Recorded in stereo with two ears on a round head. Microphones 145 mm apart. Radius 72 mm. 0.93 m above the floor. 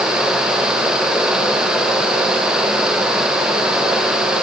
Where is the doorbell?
No doorbell in this recording.